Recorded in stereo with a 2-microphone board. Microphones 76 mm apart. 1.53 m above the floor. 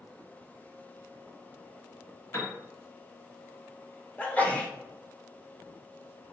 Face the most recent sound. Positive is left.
turn(degrees=20)  # may be behind; listen again after turning